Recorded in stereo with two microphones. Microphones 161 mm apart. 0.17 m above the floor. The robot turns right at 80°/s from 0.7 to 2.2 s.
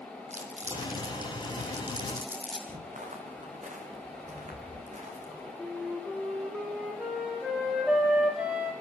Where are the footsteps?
55° right (ahead or behind), 6 m; by 5.5 s 50° right (ahead or behind), 8 m.